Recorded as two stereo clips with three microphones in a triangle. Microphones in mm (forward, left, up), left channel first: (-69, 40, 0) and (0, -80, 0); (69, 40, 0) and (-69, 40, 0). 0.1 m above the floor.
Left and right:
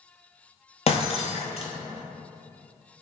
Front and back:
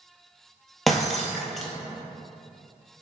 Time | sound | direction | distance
0.9 | breaking glass | 90° left | 0.6 m